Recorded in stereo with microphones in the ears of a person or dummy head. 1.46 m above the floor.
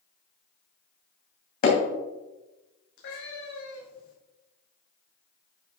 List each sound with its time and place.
1.6 s hammering: 55° left (ahead or behind), 2.5 m
3.0 s a cat meowing: 60° left (ahead or behind), 3 m